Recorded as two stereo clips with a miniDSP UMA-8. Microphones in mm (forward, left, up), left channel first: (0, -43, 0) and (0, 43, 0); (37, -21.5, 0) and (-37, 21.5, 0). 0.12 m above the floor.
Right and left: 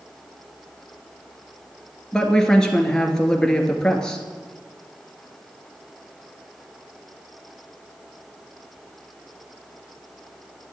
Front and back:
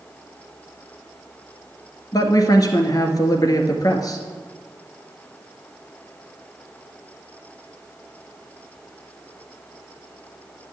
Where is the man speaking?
10° right, 1.6 m.